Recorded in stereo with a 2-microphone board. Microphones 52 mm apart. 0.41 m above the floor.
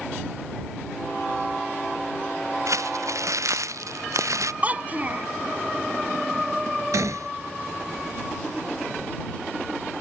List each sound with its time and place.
2.7 s crumpling: 80° right
4.6 s a child speaking: 30° right (ahead or behind)
6.9 s a gunshot: 80° right